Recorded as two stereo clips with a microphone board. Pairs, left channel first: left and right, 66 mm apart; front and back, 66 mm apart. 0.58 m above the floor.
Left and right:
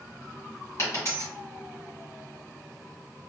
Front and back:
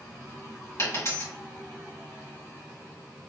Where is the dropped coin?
40° left, 1.7 m.